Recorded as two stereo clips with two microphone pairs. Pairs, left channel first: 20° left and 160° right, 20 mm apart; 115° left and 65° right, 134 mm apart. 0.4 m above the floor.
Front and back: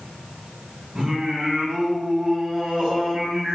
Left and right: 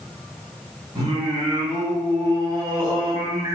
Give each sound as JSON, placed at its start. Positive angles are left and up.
{"t": 0.9, "sound": "singing", "azimuth_deg": -120, "distance_m": 0.9}